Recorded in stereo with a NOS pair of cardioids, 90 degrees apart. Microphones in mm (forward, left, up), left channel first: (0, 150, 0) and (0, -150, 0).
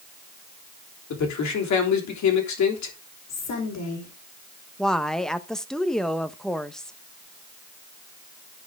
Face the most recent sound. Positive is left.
turn(degrees=0)